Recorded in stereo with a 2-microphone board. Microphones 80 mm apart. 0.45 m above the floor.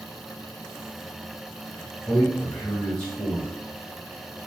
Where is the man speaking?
10° left (ahead or behind), 1.9 m.